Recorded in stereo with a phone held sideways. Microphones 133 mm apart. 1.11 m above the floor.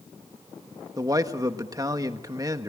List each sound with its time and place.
1.0 s a man speaking: 25° right (ahead or behind), 1.4 m